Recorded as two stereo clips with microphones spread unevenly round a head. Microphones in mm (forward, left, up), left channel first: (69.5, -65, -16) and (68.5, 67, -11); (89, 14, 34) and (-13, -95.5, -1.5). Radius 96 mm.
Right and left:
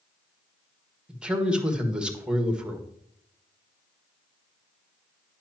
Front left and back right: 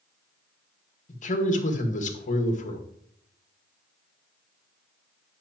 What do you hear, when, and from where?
1.1 s a man speaking: 5° left, 1.7 m